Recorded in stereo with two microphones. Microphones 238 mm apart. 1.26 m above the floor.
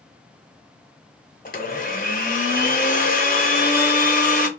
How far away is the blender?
About 0.7 m.